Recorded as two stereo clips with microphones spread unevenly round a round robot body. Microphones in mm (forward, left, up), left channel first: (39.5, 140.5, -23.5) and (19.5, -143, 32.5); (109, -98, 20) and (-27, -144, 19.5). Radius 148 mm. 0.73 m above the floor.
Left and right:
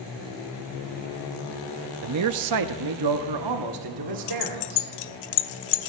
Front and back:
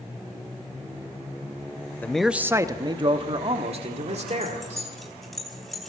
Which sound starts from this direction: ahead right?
A man speaking, at 2.0 s.